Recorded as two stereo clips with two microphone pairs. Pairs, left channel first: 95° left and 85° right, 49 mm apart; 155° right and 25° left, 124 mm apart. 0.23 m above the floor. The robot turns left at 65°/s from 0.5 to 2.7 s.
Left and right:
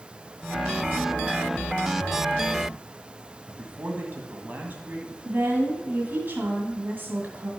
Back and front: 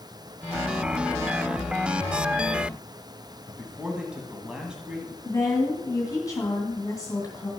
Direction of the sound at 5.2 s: 110° right.